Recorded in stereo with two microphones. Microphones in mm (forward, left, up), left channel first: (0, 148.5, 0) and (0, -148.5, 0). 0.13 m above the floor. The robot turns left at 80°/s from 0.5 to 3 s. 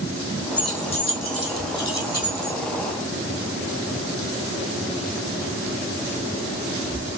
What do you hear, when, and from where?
0.6 s keys jangling: 5° right (ahead or behind), 3.5 m; by 2.6 s 25° left (ahead or behind), 3.5 m